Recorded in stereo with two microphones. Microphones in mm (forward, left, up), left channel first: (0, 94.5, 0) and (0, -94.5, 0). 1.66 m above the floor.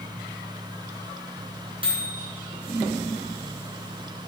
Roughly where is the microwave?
Right.